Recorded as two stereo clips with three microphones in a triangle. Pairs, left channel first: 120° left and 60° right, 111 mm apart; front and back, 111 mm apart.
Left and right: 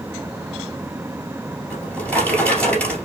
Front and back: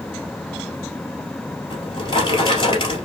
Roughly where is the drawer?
Ahead left.